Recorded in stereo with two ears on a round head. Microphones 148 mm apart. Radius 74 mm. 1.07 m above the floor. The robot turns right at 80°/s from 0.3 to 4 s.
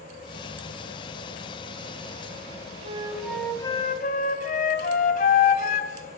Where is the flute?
40° right, 2.5 m; by 6.2 s 55° left, 2.5 m.